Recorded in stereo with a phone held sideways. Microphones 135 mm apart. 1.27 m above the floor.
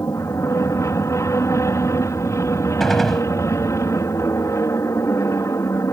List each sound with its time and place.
0.0 s an aircraft: 20° left (ahead or behind)
2.8 s a gunshot: centre (ahead or behind)